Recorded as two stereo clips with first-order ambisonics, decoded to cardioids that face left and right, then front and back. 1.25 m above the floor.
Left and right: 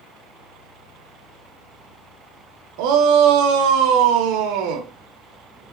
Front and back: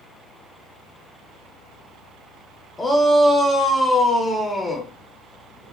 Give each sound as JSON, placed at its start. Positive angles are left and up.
{"t": 2.8, "sound": "a shout", "azimuth_deg": -85, "distance_m": 0.5}